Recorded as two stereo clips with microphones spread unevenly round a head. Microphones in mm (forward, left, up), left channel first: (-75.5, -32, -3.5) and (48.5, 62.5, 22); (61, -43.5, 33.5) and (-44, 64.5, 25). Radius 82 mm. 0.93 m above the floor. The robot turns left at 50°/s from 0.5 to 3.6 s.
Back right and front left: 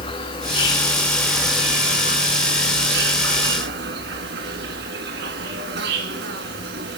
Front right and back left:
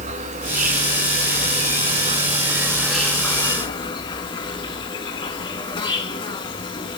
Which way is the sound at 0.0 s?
165° left.